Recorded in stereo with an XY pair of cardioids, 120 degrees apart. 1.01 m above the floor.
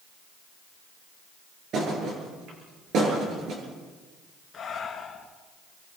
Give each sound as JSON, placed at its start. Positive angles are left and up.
{"t": 1.7, "sound": "a thud", "azimuth_deg": -60, "distance_m": 8.5}
{"t": 4.5, "sound": "breathing", "azimuth_deg": 30, "distance_m": 3.5}